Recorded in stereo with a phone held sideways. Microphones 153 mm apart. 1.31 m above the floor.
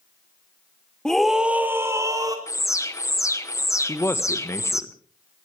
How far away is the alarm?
About 0.9 m.